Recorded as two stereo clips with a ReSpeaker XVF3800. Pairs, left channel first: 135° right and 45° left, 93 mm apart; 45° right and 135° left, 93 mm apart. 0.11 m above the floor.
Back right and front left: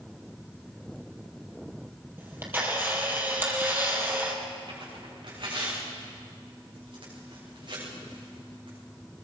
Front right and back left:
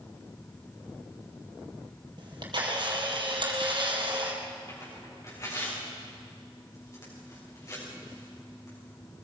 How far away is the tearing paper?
About 8.5 m.